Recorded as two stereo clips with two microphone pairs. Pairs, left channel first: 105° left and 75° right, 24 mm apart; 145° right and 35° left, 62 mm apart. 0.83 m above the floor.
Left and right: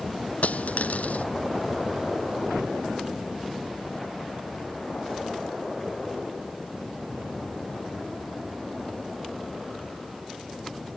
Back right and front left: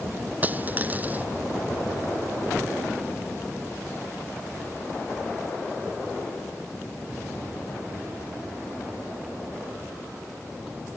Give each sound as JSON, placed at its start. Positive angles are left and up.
{"t": 0.4, "sound": "a dropped coin", "azimuth_deg": 95}